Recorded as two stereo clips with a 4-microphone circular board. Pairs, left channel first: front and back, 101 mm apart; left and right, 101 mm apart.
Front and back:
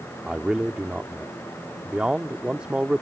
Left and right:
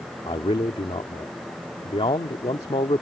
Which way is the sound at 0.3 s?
100° left.